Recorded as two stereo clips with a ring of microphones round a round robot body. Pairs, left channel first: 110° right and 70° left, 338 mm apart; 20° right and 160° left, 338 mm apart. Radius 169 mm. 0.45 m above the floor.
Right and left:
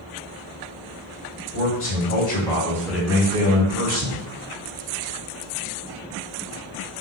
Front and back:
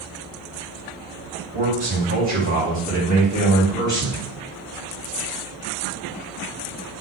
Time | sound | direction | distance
1.5 | a man speaking | 140° right | 2 m